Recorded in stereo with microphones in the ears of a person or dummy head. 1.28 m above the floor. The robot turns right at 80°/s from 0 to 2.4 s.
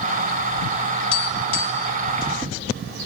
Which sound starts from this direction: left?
Tapping, at 1.1 s.